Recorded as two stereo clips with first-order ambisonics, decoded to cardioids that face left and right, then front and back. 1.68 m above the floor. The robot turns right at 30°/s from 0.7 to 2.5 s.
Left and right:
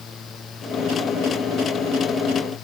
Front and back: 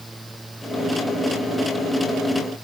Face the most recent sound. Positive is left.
No sound to turn to.